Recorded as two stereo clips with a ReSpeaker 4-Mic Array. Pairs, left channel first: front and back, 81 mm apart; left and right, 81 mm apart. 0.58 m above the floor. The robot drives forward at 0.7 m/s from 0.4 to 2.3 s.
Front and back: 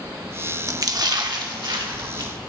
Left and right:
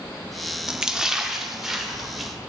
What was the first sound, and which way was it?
A splash, 165° right.